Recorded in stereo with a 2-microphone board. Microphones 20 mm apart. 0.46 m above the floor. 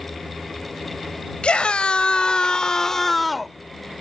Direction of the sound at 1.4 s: 65° left (ahead or behind).